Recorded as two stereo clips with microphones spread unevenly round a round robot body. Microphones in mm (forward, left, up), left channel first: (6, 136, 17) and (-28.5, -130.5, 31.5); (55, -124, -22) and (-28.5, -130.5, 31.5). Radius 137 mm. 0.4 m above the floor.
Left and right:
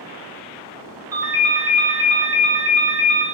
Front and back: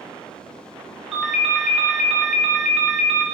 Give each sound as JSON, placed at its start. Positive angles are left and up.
{"t": 1.1, "sound": "a ringtone", "azimuth_deg": -25, "distance_m": 0.7}